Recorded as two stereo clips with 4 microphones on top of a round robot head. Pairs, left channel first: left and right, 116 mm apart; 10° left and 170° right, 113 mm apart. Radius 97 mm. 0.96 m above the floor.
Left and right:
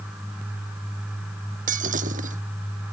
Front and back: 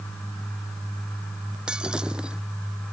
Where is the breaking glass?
90° right.